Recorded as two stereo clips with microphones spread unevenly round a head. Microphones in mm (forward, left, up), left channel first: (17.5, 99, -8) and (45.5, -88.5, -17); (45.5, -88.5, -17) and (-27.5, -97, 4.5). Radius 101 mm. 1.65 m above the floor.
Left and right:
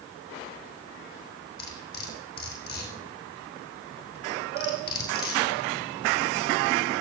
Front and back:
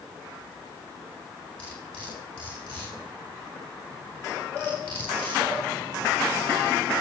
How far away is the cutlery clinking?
About 4.5 m.